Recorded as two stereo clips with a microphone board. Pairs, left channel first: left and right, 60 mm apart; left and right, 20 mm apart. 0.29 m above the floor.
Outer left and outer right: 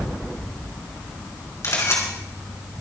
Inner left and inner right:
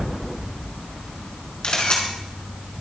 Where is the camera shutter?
50° left (ahead or behind), 3.5 m.